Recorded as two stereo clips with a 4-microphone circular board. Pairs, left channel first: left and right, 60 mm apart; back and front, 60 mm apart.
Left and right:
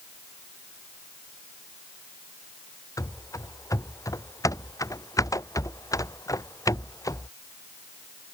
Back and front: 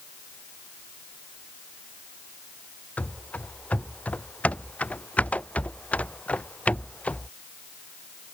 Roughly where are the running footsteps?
Behind left.